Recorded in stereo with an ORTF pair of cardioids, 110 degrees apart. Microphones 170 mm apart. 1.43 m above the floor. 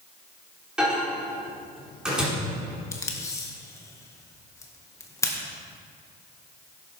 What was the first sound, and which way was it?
A microwave, 5° right.